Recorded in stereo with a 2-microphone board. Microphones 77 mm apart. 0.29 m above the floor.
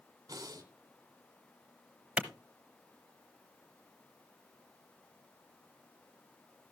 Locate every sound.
0.3 s breathing: 50° right (ahead or behind), 1.7 m
2.2 s a clap: 15° right (ahead or behind), 1.0 m